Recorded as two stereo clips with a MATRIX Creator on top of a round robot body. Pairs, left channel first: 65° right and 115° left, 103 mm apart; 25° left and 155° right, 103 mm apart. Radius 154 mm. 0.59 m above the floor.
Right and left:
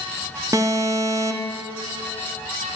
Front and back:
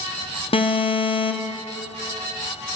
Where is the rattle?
No rattle in this recording.